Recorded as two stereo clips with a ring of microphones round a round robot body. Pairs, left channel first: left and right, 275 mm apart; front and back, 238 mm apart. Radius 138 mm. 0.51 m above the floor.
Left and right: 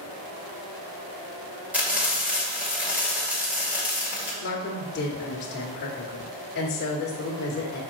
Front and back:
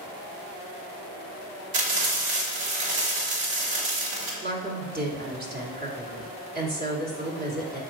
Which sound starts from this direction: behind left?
A woman speaking, at 4.4 s.